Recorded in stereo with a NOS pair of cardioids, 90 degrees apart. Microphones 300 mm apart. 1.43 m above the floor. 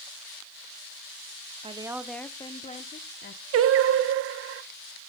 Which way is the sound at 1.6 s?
20° right.